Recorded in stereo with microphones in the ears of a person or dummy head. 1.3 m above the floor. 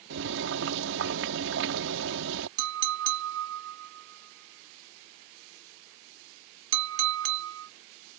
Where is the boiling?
65° right (ahead or behind).